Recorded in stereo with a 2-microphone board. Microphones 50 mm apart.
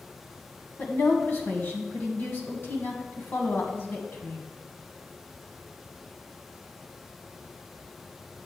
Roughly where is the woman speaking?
Left.